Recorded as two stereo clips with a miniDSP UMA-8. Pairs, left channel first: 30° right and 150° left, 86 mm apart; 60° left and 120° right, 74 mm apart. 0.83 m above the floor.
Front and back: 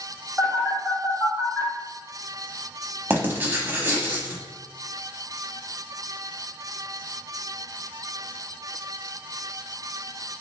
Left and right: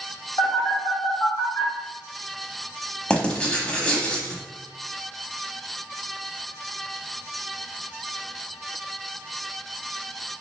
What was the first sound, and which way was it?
A phone buzzing, 50° left.